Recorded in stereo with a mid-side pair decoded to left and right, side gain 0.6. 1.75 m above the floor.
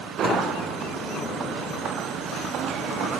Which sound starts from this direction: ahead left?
A sliding door, at 0.2 s.